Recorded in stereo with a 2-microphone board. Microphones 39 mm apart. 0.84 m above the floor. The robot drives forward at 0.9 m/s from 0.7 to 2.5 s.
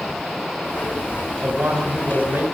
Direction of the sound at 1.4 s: 65° right (ahead or behind).